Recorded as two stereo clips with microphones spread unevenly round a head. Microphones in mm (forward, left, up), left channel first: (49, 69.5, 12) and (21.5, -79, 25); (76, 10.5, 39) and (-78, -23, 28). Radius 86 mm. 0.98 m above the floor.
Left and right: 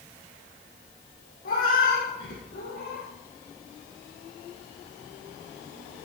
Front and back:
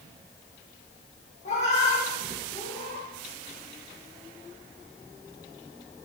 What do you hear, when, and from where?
1.4 s a cat meowing: 60° left, 4 m; by 3.1 s 70° left, 5 m